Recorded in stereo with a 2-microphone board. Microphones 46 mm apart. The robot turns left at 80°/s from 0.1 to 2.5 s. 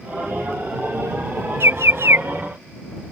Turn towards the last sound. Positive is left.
turn(degrees=-145)